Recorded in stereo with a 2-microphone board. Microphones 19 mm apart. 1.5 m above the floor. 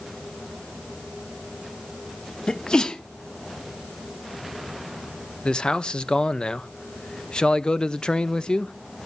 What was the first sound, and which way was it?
A sneeze, 45° left (ahead or behind).